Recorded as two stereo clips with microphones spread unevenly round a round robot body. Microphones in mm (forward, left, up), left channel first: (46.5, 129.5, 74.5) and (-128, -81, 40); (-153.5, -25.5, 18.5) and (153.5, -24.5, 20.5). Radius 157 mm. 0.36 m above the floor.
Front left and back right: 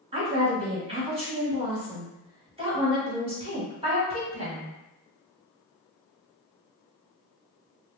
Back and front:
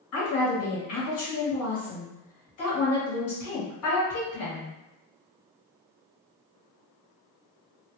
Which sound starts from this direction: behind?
A woman speaking, at 0.1 s.